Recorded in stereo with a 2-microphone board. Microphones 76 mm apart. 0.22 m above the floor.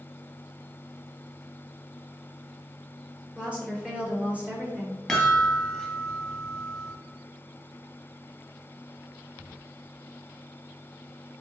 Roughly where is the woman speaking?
Centre.